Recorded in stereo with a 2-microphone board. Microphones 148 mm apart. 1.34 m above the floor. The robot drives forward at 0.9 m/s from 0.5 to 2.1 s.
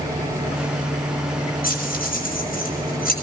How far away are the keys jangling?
About 6 m.